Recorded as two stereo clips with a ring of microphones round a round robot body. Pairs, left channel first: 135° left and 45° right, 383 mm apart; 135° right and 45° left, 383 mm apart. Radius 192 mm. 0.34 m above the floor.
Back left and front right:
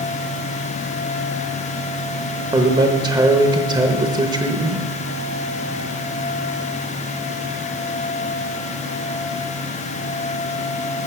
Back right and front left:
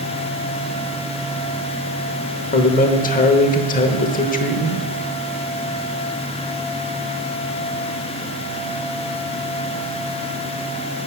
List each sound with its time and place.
2.5 s a man speaking: 110° right, 0.9 m